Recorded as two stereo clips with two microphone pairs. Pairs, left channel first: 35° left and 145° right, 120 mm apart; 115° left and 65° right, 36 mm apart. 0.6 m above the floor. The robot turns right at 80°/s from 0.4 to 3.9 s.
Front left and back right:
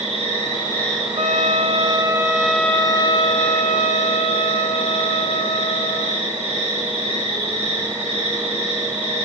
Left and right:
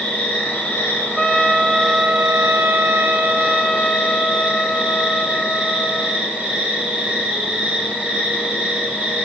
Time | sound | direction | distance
0.0 | an insect | 75° left | 6 m
1.2 | a trumpet | 165° right | 0.6 m